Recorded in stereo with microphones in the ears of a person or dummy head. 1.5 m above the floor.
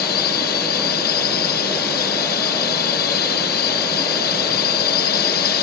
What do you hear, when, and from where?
0.0 s a drone: 55° left (ahead or behind)